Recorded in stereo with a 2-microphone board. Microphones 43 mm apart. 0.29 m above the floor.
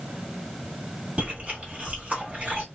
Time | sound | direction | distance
1.2 | chewing | 30° right (ahead or behind) | 1.2 m